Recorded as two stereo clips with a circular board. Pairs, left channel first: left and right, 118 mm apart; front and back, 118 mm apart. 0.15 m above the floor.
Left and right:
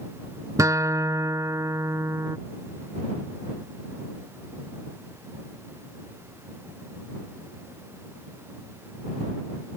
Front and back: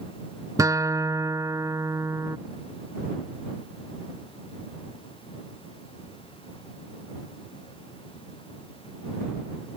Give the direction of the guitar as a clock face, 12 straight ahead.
5 o'clock.